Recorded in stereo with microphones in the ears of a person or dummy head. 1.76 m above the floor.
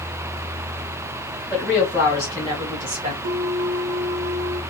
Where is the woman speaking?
5° left (ahead or behind), 1.2 m; by 3.1 s 40° right (ahead or behind), 1.1 m.